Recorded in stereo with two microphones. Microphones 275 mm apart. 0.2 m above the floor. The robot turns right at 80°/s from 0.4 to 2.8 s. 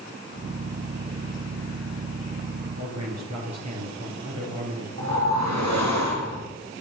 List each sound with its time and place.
2.8 s a man speaking: 70° right (ahead or behind), 5.5 m
5.0 s a whoosh: 80° right, 4 m